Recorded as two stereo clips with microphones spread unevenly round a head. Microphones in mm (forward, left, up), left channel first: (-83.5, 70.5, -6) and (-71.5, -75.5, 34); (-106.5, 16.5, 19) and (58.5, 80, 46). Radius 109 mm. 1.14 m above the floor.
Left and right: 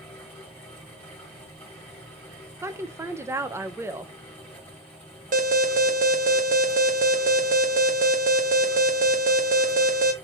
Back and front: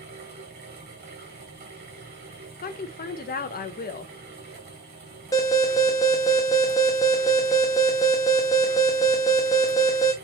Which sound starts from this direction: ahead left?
A fan, at 0.0 s.